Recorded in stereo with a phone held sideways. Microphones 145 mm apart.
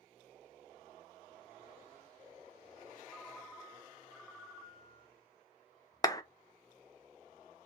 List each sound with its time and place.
3.1 s a ringtone: centre (ahead or behind), 1.1 m
6.0 s a clap: 25° left (ahead or behind), 0.5 m